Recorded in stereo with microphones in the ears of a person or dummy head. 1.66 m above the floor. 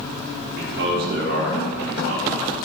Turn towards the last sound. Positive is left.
turn(degrees=-65)  # may be behind; listen again after turning